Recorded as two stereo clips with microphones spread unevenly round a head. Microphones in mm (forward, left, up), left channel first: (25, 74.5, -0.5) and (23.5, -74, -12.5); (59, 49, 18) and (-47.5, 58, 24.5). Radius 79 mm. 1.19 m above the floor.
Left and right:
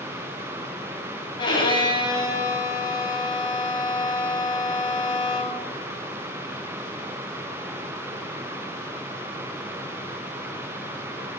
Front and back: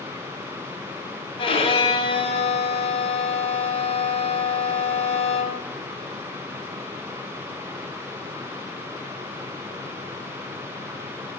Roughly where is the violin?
Ahead left.